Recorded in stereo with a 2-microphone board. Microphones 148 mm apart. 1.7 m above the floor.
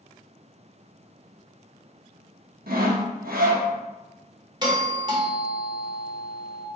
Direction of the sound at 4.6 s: 30° right (ahead or behind).